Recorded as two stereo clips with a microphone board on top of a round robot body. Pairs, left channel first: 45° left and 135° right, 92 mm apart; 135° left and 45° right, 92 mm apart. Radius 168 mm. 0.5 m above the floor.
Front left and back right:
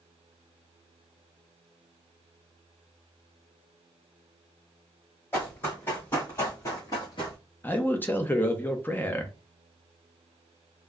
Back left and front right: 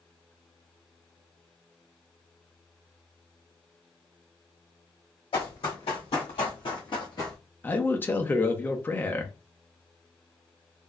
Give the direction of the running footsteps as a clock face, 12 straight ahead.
8 o'clock.